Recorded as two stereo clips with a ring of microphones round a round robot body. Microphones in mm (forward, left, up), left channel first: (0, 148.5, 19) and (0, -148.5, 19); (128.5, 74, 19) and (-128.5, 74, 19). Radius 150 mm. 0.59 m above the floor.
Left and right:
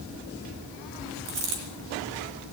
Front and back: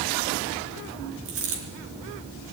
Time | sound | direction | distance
1.2 | a dropped coin | 130° right | 4.5 m